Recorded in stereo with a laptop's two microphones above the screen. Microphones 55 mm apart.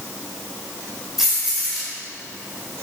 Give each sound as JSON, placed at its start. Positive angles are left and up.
{"t": 1.2, "sound": "keys jangling", "side_deg": -5, "distance_m": 3.5}